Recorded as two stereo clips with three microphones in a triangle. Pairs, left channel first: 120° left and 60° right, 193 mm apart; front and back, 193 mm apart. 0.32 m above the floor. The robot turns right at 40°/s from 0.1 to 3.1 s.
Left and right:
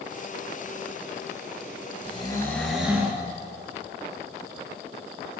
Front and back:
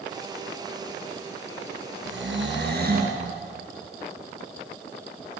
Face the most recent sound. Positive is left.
turn(degrees=-135)